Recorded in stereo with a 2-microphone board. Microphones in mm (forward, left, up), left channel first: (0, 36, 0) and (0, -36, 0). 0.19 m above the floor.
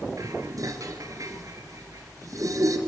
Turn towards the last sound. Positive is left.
turn(degrees=-50)  # may be behind; listen again after turning